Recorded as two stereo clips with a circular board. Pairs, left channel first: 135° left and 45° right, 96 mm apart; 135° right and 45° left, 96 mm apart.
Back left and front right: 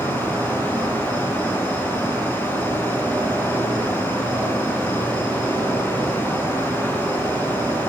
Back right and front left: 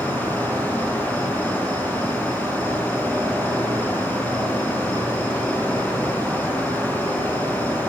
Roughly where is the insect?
Left.